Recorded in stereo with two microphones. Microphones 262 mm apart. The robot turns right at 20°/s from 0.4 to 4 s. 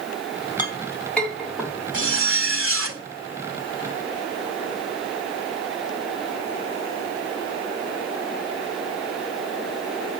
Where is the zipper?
50° right (ahead or behind), 1.7 m; by 3.0 s 55° right (ahead or behind), 1.7 m.